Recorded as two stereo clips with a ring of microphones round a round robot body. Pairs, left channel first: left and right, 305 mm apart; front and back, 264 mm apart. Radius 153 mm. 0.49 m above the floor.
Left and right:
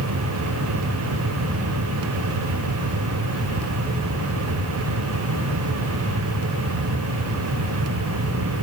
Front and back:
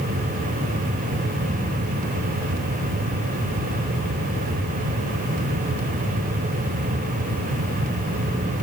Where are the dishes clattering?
I don't hear dishes clattering.